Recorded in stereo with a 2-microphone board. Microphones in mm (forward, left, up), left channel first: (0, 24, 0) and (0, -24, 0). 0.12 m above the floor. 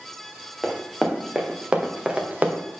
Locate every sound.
0.6 s running footsteps: centre (ahead or behind), 2.5 m; by 2.6 s 35° right (ahead or behind), 1.8 m